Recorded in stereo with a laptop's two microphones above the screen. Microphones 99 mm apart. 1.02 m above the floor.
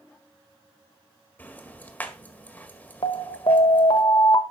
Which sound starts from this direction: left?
An alarm, at 3.0 s.